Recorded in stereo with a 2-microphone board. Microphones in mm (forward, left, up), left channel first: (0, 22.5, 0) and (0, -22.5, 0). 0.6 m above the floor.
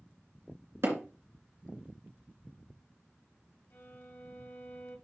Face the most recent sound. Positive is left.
turn(degrees=75)  # may be behind; listen again after turning